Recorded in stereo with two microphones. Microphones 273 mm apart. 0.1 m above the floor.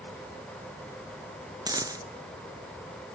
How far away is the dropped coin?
About 0.6 m.